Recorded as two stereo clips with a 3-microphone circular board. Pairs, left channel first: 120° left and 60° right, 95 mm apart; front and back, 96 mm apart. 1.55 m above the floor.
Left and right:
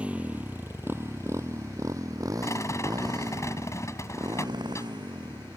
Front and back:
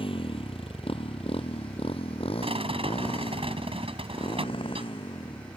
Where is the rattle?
Straight behind.